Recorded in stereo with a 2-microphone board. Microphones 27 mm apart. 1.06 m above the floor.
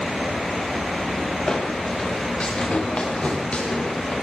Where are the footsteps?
40° left (ahead or behind), 7 m; by 4.1 s 55° left (ahead or behind), 7.5 m.